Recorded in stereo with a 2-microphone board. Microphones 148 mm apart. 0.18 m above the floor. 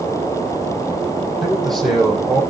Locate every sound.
1.4 s a man speaking: centre (ahead or behind), 5.5 m